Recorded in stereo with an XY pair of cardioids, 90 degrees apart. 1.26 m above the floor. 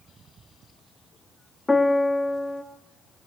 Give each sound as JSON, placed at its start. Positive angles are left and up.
{"t": 1.7, "sound": "a piano", "azimuth_deg": 15, "distance_m": 2.0}